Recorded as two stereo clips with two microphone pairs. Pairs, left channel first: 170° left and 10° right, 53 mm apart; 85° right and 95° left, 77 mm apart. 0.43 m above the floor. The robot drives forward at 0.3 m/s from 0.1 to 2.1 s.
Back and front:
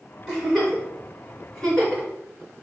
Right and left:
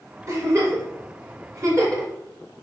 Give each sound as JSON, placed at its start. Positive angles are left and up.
{"t": 0.3, "sound": "a giggle", "azimuth_deg": 70, "distance_m": 1.7}